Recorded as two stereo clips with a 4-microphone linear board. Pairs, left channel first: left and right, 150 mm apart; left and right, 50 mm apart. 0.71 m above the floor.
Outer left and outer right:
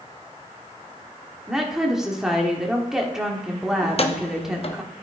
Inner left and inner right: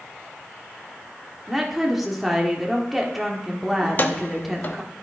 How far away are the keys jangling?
About 0.7 m.